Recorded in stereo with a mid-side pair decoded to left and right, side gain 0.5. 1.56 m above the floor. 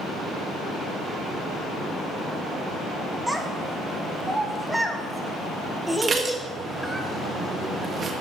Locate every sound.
3.3 s a child speaking: 5° right, 1.6 m
6.0 s dishes clattering: 40° right, 1.6 m